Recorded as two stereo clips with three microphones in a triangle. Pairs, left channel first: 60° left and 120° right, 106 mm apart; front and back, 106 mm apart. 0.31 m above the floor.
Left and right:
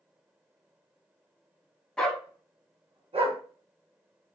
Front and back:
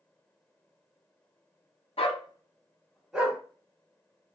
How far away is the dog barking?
About 0.9 m.